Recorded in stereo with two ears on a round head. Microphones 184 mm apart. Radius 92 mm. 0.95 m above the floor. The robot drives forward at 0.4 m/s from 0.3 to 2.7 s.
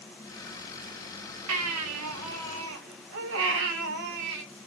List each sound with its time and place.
1.5 s a baby crying: 75° right (ahead or behind), 0.8 m; by 4.4 s 70° right (ahead or behind), 0.9 m